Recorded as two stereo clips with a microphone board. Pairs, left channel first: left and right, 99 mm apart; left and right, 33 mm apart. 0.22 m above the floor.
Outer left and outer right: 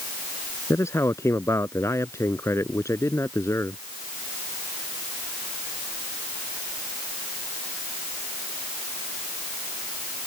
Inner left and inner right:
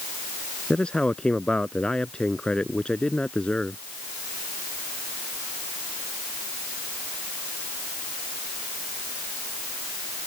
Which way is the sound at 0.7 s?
30° left (ahead or behind).